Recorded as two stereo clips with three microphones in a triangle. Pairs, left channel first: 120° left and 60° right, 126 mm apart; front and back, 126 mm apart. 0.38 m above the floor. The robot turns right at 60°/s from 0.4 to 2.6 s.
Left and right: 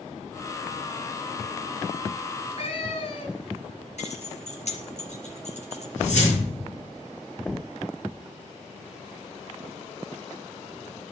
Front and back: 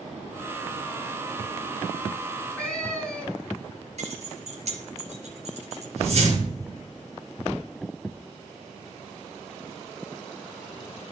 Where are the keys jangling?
150° left, 4 m.